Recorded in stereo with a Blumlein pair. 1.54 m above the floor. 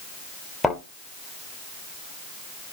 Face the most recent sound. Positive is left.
turn(degrees=5)